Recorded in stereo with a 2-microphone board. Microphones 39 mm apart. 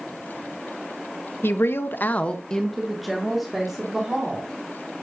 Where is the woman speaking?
80° left, 1.0 m; by 4.5 s 15° right (ahead or behind), 3.5 m.